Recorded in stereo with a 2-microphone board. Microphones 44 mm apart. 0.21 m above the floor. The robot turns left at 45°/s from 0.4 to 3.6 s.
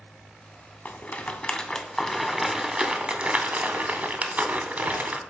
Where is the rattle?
35° left (ahead or behind), 0.7 m; by 5.2 s 35° right (ahead or behind), 0.7 m.